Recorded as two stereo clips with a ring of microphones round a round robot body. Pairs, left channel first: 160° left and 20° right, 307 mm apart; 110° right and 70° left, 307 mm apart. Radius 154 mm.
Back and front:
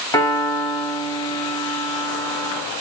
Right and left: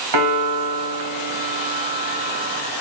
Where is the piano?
80° left, 2 m.